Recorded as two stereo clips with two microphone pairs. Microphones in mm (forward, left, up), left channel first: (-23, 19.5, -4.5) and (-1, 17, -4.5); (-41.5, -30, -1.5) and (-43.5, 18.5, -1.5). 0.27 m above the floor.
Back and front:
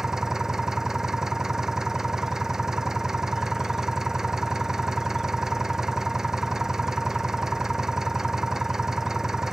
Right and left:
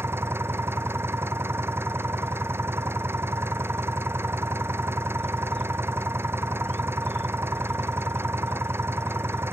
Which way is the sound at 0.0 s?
60° left.